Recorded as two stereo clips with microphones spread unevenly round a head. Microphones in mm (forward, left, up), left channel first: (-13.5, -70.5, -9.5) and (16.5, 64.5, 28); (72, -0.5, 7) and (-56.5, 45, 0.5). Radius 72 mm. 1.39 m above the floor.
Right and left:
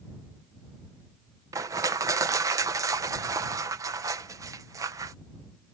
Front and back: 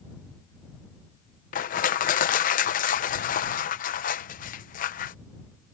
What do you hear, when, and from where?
1.5 s crushing: 10° left